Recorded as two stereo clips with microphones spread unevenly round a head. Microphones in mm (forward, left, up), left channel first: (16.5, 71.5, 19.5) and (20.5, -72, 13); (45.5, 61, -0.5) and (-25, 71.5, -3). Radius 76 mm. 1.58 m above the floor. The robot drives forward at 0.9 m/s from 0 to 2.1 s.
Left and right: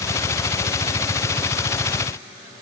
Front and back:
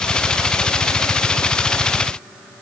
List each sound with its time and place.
Only background noise.